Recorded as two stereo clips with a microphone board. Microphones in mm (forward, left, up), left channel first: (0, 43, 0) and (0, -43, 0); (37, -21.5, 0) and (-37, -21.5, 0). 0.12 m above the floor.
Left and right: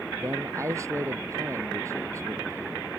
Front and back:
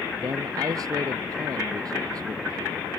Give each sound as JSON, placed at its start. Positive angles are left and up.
{"t": 0.2, "sound": "a man speaking", "azimuth_deg": -145}